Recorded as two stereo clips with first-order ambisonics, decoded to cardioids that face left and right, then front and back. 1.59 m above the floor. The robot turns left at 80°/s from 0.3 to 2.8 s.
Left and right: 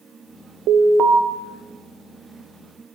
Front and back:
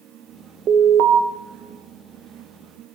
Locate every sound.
0.7 s an alarm: 125° right, 1.3 m; by 1.2 s 170° right, 1.3 m